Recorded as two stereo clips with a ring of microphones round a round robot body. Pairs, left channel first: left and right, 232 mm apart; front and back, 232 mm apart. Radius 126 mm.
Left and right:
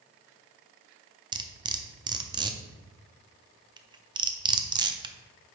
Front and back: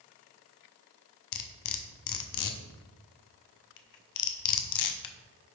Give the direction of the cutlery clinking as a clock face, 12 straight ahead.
1 o'clock.